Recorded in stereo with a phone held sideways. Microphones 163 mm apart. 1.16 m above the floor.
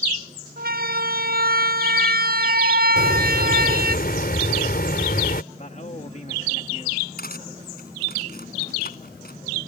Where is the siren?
65° right (ahead or behind).